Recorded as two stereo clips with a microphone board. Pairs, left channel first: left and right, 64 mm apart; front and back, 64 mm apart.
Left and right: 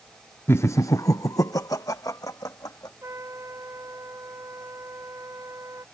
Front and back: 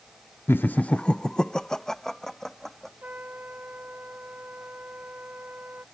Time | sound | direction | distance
0.5 | laughter | 45° left | ?
3.0 | a trumpet | 120° right | ?